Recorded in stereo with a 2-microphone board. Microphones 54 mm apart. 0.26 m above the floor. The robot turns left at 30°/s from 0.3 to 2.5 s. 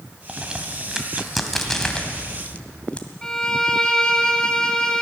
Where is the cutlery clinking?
No cutlery clinking in this recording.